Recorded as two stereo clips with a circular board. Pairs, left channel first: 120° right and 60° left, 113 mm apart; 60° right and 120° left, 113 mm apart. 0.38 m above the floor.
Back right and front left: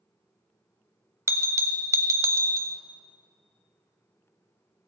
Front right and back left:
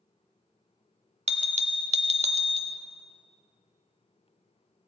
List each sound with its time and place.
1.3 s a bell: 120° left, 0.6 m